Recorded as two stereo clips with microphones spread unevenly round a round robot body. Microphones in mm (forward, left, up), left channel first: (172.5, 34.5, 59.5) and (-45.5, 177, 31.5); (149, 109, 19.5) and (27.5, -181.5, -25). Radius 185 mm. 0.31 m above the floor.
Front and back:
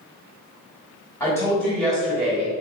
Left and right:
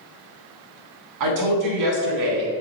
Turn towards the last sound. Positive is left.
turn(degrees=-135)